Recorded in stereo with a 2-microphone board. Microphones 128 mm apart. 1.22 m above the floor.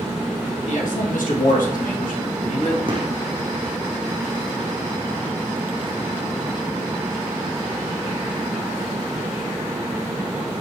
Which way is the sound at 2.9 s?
40° right (ahead or behind).